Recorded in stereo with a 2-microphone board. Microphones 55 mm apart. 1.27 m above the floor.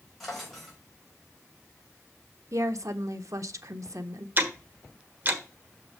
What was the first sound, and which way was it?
A drawer, centre (ahead or behind).